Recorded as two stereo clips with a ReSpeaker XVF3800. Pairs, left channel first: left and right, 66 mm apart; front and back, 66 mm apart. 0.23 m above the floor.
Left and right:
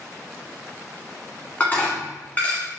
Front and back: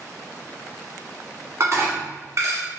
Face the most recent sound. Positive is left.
turn(degrees=150)